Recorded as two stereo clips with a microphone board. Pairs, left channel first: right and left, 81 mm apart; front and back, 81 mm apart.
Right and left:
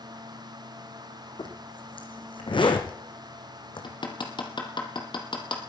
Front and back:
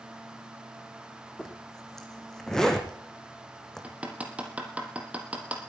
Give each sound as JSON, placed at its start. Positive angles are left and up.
{"t": 1.4, "sound": "a zipper", "azimuth_deg": -85, "distance_m": 2.5}
{"t": 3.8, "sound": "hammering", "azimuth_deg": -105, "distance_m": 3.0}